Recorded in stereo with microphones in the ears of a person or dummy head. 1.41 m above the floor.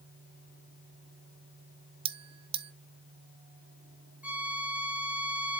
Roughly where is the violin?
Centre.